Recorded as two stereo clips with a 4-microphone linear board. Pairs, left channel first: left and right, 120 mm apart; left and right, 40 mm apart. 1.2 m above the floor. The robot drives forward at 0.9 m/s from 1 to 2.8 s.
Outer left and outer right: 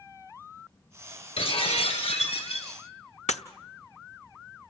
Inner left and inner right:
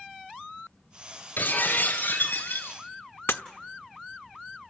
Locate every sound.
1.4 s breaking glass: 60° left (ahead or behind), 5.5 m; by 2.8 s 70° left (ahead or behind), 5 m
3.3 s breaking glass: 80° left, 1.0 m